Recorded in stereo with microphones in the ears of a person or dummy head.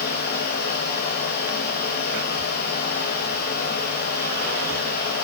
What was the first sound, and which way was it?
A fan, 45° left (ahead or behind).